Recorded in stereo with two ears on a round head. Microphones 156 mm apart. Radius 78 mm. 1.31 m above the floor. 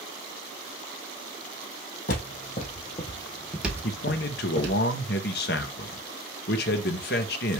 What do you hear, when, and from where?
2.1 s footsteps: 50° left (ahead or behind), 2.5 m; by 4.8 s 45° right (ahead or behind), 2 m
3.8 s a man speaking: 60° left (ahead or behind), 0.9 m